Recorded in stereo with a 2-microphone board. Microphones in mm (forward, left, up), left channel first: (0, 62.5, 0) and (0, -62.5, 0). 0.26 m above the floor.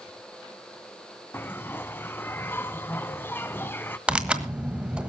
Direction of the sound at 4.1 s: 10° right (ahead or behind).